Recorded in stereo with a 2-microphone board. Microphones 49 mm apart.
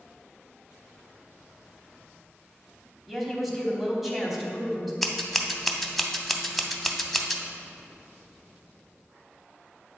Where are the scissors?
5° left (ahead or behind), 0.6 m.